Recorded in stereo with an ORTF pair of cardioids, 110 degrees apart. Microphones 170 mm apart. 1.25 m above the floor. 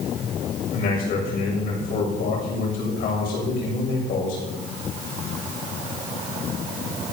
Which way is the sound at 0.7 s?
60° left.